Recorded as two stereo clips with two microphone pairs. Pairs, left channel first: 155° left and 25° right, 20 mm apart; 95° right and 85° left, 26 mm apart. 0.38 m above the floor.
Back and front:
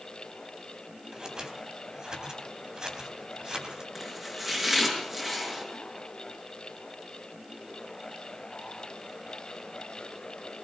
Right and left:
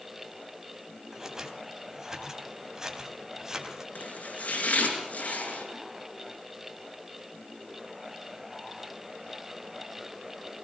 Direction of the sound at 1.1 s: 15° left.